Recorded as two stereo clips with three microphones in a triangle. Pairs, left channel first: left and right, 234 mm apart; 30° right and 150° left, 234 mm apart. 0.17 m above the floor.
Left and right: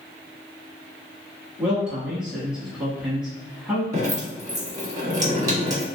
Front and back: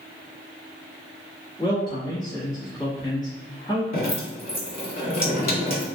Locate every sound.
1.6 s a man speaking: 10° right, 1.0 m
3.9 s dripping: 30° right, 1.8 m